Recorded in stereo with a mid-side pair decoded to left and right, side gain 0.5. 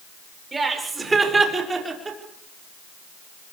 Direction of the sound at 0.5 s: 25° right.